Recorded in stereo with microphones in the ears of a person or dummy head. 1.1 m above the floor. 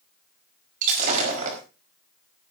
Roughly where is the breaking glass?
Right.